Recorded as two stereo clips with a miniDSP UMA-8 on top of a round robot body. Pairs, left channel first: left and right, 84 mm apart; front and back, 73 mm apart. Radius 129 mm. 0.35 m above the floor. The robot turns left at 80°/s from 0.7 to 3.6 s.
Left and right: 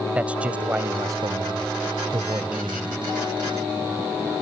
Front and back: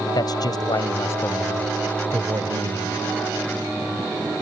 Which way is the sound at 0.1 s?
15° right.